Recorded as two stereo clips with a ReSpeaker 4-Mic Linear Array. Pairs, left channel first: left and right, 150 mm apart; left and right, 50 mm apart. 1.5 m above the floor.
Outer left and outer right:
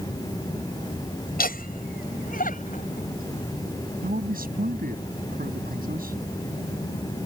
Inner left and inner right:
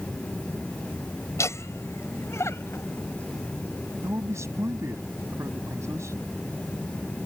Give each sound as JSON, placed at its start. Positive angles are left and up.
{"t": 1.4, "sound": "laughter", "side_deg": 75}
{"t": 4.0, "sound": "a man speaking", "side_deg": -70}